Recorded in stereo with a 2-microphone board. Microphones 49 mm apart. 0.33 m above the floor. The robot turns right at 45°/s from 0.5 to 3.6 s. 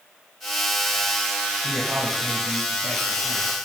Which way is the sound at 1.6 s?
90° right.